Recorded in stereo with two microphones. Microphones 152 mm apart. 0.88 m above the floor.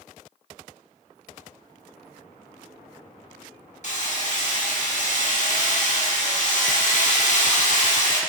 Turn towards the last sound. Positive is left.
turn(degrees=55)  # may be behind; listen again after turning